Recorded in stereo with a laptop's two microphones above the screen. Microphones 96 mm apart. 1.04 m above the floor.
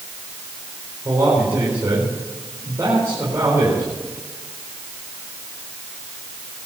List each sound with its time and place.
1.1 s a man speaking: 35° right (ahead or behind), 4.5 m